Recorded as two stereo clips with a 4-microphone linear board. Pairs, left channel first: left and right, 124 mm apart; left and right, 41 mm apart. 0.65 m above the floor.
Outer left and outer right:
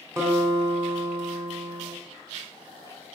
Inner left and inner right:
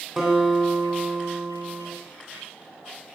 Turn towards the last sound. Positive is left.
turn(degrees=-20)  # may be behind; listen again after turning